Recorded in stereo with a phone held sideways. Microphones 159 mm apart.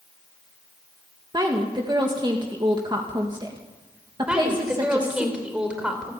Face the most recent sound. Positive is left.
turn(degrees=-5)  # may be behind; listen again after turning